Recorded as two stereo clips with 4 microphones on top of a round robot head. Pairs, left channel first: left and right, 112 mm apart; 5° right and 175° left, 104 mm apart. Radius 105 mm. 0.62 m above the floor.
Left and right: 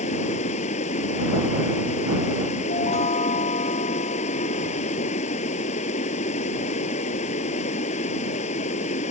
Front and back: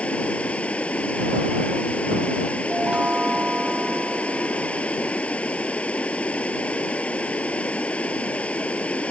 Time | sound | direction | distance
0.0 | running water | 70° left | ?
2.7 | a chime | 95° left | ?